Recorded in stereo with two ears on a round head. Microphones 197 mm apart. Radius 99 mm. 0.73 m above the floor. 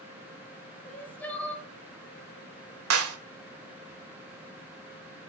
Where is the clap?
70° right (ahead or behind), 2 m.